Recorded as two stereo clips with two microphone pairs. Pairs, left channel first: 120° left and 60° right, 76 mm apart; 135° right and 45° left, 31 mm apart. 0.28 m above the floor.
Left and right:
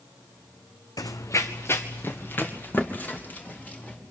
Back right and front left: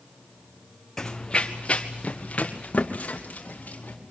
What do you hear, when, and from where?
1.0 s running footsteps: 150° left, 0.8 m; by 4.0 s 170° right, 4.5 m